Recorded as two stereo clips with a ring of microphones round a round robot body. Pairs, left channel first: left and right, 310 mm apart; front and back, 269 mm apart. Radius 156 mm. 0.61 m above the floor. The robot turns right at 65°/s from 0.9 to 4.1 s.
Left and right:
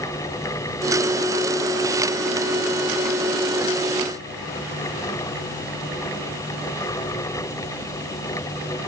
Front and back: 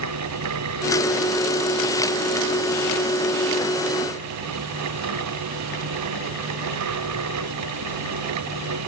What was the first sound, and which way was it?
Only background noise.